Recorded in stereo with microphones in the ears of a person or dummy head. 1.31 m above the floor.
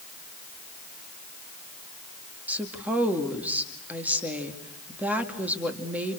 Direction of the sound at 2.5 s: 10° right (ahead or behind).